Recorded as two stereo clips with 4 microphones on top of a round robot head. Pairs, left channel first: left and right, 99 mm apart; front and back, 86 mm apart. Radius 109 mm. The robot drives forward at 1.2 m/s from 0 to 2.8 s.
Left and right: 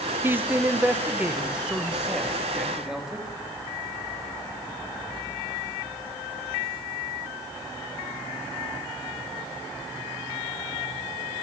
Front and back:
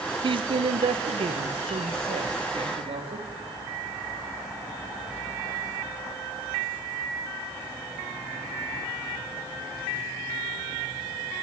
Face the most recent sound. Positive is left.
turn(degrees=-175)